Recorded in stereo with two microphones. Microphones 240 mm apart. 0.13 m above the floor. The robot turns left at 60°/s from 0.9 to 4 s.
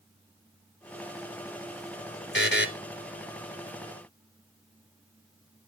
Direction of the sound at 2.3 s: 50° left (ahead or behind).